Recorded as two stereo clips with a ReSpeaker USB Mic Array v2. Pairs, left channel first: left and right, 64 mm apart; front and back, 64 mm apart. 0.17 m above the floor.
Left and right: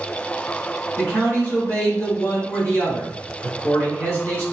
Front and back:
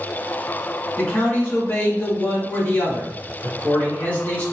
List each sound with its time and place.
1.0 s a man speaking: 55° left, 1.8 m